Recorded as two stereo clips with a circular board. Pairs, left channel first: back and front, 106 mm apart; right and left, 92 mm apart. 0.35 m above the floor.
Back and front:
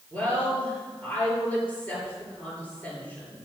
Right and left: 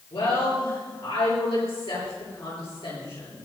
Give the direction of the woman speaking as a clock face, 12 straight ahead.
4 o'clock.